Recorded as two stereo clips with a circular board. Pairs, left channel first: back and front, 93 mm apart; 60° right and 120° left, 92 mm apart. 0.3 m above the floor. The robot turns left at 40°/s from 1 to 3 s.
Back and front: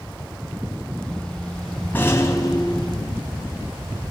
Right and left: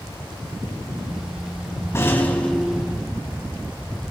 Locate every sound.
1.9 s a rattle: 115° right, 2 m; by 3.2 s 160° right, 2 m